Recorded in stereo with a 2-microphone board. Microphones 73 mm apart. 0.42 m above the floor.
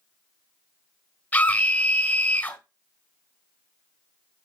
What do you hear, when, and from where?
1.3 s a scream: 25° left (ahead or behind), 1.8 m